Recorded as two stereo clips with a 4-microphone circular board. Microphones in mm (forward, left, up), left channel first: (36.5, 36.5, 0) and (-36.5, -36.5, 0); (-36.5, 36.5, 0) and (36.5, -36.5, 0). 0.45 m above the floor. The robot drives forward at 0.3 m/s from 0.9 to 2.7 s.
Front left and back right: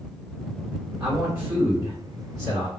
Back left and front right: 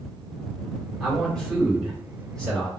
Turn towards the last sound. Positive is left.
turn(degrees=-155)